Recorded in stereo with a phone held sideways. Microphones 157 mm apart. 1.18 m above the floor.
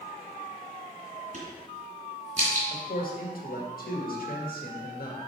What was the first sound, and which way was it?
A crack, 50° right (ahead or behind).